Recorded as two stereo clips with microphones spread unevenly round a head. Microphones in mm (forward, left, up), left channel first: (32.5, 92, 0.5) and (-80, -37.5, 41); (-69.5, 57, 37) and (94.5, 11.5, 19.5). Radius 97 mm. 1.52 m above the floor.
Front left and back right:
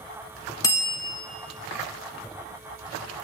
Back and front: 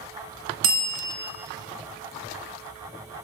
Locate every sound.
0.6 s a bell: 30° right, 1.5 m